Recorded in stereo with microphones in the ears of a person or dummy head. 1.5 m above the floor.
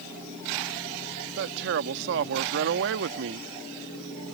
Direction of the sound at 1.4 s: 65° right (ahead or behind).